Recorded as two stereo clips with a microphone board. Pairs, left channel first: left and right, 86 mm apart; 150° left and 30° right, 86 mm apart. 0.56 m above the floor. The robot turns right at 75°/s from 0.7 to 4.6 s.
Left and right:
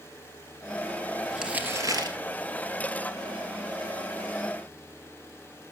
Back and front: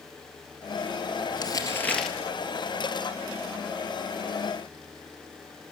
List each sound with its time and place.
1.3 s crumpling: straight behind, 3.5 m; by 2.2 s 115° right, 3.5 m